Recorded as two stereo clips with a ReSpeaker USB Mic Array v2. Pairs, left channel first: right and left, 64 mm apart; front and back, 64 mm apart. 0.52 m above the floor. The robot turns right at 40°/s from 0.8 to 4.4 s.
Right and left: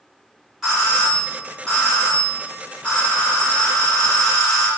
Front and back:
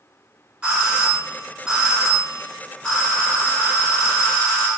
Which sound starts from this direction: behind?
A doorbell, at 0.6 s.